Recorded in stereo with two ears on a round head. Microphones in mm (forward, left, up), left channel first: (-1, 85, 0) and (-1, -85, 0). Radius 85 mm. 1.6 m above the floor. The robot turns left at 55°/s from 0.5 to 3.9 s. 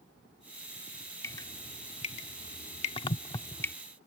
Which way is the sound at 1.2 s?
15° left (ahead or behind).